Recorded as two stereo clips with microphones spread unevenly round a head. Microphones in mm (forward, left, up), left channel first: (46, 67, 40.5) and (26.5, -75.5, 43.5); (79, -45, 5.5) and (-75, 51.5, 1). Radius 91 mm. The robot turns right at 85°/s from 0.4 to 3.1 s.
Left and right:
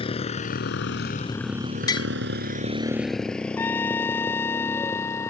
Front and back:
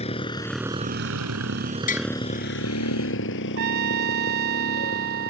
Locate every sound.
0.0 s a motorcycle: 30° left; by 5.3 s 10° left
1.9 s tapping: 15° left; by 2.1 s 30° left
3.6 s a trumpet: 155° left